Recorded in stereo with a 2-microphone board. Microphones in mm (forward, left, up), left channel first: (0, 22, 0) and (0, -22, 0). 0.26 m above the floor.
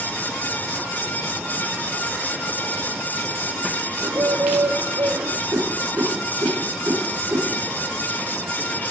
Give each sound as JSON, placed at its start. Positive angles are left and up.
{"t": 4.0, "sound": "a bird", "side_deg": -75, "distance_m": 0.6}
{"t": 5.5, "sound": "a whoosh", "side_deg": -60, "distance_m": 2.5}